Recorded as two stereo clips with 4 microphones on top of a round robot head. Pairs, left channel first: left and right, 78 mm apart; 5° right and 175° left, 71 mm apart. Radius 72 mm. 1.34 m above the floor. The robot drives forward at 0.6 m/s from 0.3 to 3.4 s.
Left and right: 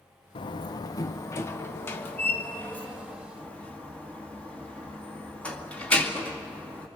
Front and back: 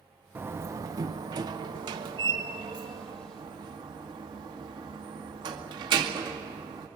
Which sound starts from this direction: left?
A door slam, at 0.3 s.